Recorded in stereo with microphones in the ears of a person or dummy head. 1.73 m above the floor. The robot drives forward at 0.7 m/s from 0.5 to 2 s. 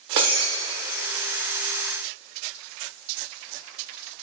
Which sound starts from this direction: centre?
Breaking glass, at 0.2 s.